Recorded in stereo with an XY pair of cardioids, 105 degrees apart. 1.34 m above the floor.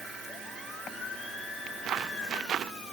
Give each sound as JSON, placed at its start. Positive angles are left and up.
{"t": 1.7, "sound": "footsteps", "azimuth_deg": -60}